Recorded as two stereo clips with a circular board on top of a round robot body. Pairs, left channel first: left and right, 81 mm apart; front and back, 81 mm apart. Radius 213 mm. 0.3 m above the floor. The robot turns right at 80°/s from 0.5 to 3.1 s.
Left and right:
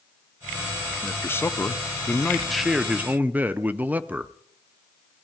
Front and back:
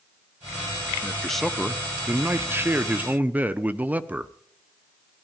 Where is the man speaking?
60° left, 0.9 m; by 4.3 s 135° right, 0.9 m.